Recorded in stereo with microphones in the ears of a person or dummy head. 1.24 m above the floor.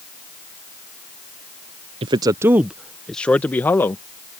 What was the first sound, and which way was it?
A man speaking, 30° right (ahead or behind).